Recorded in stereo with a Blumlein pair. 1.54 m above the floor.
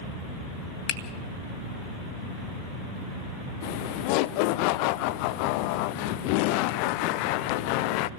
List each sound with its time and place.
0.9 s a finger snap: 35° left, 1.7 m
3.6 s laughter: 45° left, 0.8 m